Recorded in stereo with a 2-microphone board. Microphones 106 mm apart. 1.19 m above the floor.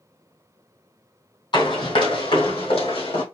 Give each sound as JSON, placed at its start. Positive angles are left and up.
{"t": 1.5, "sound": "running footsteps", "side_deg": 50, "distance_m": 1.9}